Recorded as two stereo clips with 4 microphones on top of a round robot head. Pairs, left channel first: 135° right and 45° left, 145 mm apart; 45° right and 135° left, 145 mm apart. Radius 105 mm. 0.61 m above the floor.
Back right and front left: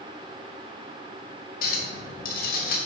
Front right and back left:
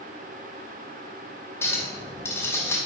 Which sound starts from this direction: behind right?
A clink, at 1.6 s.